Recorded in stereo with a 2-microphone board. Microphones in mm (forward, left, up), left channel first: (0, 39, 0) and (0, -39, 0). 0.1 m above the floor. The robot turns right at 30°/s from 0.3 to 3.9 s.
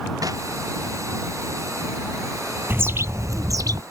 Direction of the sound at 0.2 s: 50° right (ahead or behind).